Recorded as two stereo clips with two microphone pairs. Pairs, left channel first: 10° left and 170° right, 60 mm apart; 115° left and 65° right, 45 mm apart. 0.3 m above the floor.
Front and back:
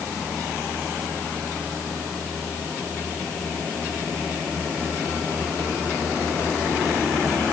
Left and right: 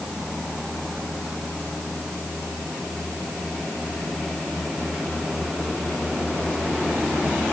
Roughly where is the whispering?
I don't hear whispering.